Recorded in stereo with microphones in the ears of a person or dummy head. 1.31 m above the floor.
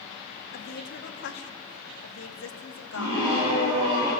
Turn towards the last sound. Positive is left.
turn(degrees=-30)  # may be behind; listen again after turning